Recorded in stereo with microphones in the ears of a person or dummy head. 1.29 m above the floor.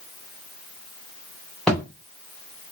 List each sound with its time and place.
1.7 s a thud: centre (ahead or behind), 0.6 m